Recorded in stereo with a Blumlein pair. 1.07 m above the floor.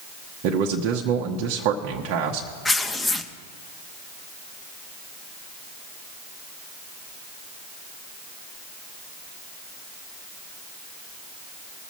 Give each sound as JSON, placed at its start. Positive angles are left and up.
{"t": 0.4, "sound": "a man speaking", "azimuth_deg": -40, "distance_m": 1.0}
{"t": 2.6, "sound": "tearing paper", "azimuth_deg": 10, "distance_m": 0.8}